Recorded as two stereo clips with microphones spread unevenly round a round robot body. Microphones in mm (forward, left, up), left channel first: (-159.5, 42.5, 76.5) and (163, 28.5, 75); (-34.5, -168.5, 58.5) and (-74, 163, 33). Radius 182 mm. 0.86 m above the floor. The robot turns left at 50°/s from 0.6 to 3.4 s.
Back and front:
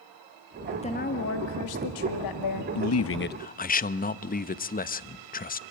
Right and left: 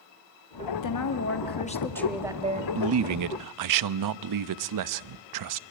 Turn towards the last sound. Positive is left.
turn(degrees=115)